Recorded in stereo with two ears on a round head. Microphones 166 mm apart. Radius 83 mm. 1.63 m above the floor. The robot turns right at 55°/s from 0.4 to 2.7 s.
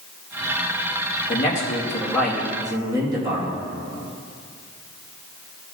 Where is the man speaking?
125° left, 2.5 m; by 3.6 s 155° right, 2.5 m.